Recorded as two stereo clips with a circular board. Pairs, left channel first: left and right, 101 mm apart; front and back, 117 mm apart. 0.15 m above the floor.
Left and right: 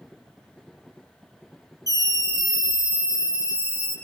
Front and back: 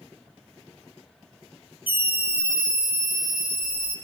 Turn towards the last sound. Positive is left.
turn(degrees=-25)